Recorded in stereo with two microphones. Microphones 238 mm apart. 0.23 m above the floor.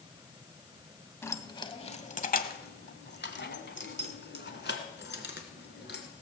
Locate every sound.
1.2 s keys jangling: 10° left (ahead or behind), 0.9 m; by 6.1 s 50° left (ahead or behind), 2.5 m